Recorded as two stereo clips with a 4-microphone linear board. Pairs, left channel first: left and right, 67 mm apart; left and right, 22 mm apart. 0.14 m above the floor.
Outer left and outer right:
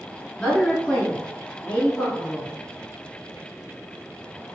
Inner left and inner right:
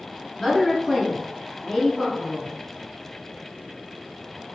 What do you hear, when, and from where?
0.4 s a woman speaking: 15° left (ahead or behind), 1.7 m; by 2.5 s 25° left (ahead or behind), 1.7 m